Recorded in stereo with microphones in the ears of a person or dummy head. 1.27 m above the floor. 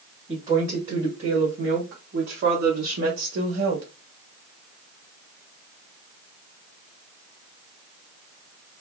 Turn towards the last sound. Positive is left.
turn(degrees=-60)  # may be behind; listen again after turning